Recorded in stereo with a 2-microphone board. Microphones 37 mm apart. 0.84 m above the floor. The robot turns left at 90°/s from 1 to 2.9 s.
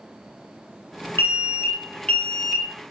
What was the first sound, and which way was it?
An alarm, 115° left.